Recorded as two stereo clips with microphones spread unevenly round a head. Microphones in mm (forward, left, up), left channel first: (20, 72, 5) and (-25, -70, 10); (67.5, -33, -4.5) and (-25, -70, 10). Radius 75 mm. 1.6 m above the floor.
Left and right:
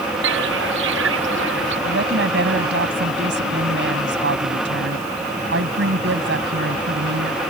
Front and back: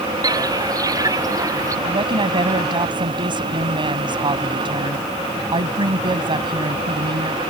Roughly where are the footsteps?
Right.